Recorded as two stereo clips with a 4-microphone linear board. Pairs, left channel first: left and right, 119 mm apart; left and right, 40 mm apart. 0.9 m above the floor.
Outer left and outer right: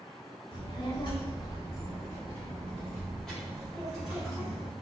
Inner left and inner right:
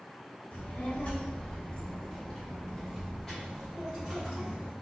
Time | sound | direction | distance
0.5 | a child speaking | 55° left (ahead or behind) | 1.6 m